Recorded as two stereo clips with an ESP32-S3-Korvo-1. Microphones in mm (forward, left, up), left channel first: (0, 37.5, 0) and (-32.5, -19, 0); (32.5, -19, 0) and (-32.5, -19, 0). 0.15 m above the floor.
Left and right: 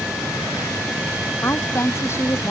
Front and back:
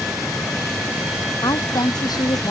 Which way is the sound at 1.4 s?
10° left.